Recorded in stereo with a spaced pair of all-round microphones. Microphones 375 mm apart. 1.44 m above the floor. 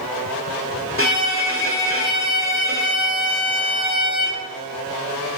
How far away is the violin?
About 1.9 m.